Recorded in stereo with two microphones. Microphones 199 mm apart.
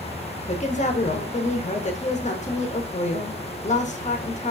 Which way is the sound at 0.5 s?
35° left (ahead or behind).